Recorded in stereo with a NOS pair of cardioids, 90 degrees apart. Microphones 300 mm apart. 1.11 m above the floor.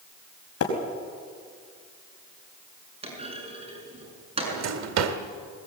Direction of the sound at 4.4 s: 65° right.